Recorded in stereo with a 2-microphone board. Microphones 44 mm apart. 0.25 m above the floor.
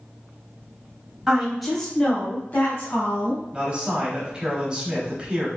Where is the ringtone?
I don't hear a ringtone.